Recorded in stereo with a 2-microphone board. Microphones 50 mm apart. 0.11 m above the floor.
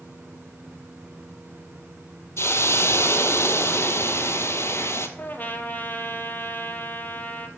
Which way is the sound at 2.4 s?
60° left (ahead or behind).